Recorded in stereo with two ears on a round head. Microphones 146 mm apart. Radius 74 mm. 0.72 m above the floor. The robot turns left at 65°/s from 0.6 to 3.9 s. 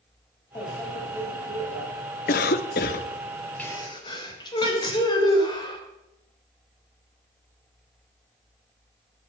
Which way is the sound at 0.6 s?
20° left.